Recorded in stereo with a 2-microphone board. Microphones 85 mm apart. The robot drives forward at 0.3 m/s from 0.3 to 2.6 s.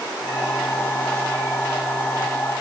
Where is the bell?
I don't hear a bell.